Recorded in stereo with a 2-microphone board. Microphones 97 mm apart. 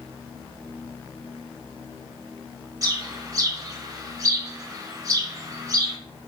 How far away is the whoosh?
I don't hear a whoosh.